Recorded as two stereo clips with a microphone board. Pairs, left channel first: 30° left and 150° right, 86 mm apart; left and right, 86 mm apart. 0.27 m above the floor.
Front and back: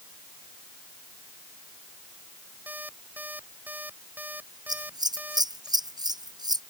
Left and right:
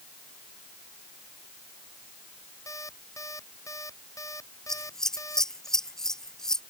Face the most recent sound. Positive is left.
turn(degrees=175)